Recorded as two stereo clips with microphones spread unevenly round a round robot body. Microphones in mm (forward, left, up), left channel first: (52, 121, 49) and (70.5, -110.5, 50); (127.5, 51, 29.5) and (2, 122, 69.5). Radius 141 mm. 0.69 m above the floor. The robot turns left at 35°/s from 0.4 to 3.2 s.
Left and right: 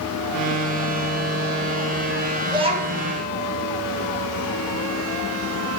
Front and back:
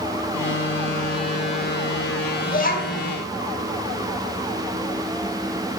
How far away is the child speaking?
About 2.5 m.